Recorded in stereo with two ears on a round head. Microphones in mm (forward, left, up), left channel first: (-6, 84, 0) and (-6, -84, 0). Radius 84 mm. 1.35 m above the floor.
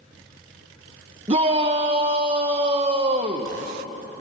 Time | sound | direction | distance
1.3 | a shout | 30° right (ahead or behind) | 1.2 m